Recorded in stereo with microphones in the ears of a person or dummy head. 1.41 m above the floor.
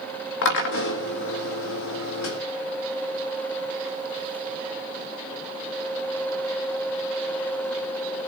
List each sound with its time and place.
0.4 s a drill: 65° left (ahead or behind), 1.9 m